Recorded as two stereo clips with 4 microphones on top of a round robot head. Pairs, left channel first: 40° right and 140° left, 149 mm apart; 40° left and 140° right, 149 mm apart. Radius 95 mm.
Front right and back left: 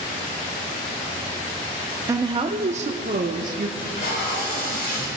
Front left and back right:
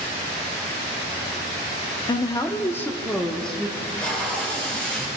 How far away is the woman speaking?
About 0.7 m.